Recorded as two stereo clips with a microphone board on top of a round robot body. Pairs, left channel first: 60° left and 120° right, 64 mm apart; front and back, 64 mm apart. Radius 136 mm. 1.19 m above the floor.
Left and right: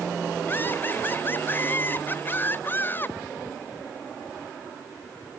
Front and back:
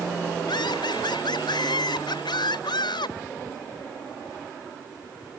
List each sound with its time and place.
0.5 s laughter: 5° right